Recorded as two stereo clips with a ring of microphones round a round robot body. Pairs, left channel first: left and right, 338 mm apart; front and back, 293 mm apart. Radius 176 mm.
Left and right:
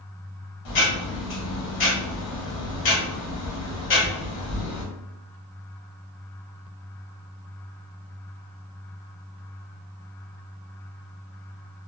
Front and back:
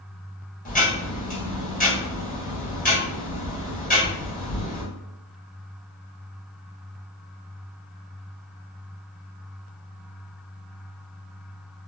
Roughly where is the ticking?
Ahead left.